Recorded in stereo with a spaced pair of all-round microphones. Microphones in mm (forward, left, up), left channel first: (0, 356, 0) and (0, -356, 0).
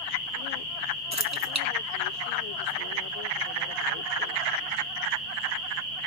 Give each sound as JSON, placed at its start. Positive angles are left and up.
{"t": 1.1, "sound": "keys jangling", "side_deg": -25, "distance_m": 0.7}